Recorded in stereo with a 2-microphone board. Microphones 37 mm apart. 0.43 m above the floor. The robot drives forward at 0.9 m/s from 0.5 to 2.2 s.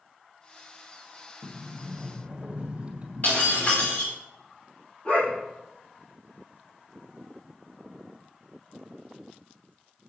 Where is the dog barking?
35° left (ahead or behind), 6 m.